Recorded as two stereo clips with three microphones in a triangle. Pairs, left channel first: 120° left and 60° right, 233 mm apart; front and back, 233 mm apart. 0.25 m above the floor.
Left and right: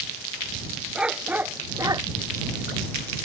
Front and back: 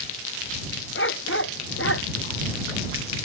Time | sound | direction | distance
0.9 | a dog barking | 25° left | ?